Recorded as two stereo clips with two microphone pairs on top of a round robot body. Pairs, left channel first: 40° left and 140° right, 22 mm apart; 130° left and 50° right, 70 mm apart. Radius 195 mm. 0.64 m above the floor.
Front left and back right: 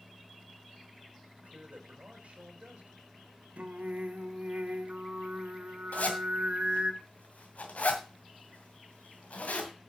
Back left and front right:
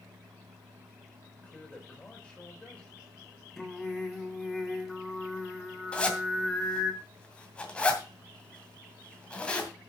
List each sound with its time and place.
1.4 s a man speaking: 155° right, 4.5 m
3.6 s singing: 145° right, 2 m
5.9 s a zipper: 55° left, 2.5 m